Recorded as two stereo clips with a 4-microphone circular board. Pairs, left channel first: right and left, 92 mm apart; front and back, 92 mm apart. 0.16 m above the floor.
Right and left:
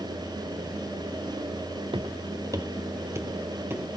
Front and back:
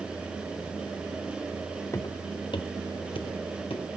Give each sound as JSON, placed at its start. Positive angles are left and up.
{"t": 1.9, "sound": "footsteps", "azimuth_deg": 60, "distance_m": 0.7}